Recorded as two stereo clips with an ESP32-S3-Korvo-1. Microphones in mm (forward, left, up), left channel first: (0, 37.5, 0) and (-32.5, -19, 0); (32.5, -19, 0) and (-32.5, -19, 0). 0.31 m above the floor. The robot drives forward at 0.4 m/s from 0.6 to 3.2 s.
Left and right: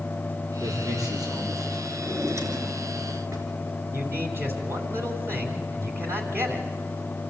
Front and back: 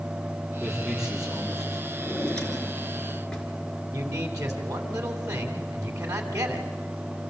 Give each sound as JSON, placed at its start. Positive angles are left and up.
{"t": 0.6, "sound": "a man speaking", "azimuth_deg": -95, "distance_m": 7.0}
{"t": 2.0, "sound": "a drawer", "azimuth_deg": -75, "distance_m": 3.0}
{"t": 3.9, "sound": "a man speaking", "azimuth_deg": -160, "distance_m": 2.5}